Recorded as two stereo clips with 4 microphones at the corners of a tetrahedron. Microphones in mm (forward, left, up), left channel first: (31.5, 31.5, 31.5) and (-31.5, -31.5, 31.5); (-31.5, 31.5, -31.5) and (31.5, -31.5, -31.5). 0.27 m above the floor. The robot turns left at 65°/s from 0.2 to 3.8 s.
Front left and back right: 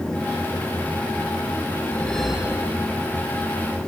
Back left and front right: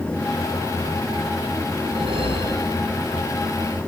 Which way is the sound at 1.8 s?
15° right.